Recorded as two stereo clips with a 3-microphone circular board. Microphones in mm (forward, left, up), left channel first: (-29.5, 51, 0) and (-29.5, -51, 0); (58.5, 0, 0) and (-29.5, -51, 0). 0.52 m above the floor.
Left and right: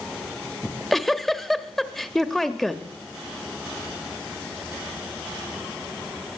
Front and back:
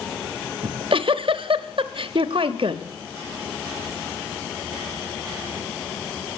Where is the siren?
No siren in this recording.